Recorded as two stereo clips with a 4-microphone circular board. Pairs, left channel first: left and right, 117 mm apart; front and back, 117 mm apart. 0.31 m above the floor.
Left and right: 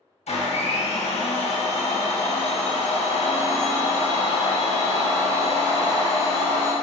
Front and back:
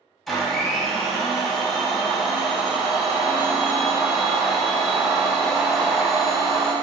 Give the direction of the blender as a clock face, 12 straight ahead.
9 o'clock.